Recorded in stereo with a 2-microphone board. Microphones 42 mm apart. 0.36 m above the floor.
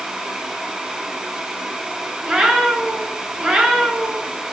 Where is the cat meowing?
20° right (ahead or behind), 0.7 m.